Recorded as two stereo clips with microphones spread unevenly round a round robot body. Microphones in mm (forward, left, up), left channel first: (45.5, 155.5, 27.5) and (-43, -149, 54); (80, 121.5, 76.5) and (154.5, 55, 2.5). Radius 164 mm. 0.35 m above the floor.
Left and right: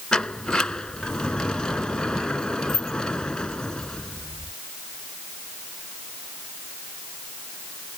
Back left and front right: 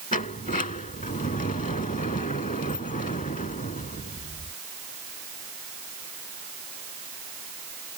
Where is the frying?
No frying in this recording.